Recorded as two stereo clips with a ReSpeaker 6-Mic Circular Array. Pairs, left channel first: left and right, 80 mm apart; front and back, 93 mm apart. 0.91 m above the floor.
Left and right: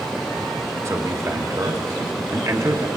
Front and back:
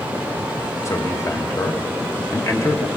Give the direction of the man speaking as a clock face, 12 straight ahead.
2 o'clock.